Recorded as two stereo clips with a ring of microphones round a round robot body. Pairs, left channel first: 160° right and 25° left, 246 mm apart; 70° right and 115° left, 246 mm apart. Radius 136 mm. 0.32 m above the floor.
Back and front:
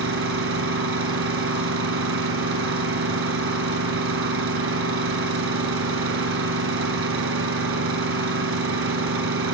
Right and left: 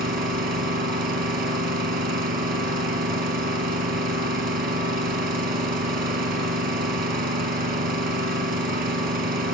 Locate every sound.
0.0 s an engine running: 60° left, 4 m